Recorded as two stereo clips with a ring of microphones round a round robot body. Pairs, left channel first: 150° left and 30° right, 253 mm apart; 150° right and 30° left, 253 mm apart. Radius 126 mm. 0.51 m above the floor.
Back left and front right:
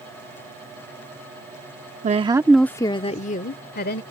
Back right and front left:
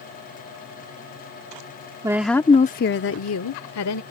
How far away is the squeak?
I don't hear a squeak.